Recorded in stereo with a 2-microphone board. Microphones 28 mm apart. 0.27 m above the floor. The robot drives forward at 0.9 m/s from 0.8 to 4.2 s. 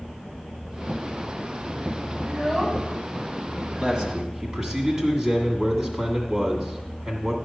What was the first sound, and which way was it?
A child speaking, 5° right (ahead or behind).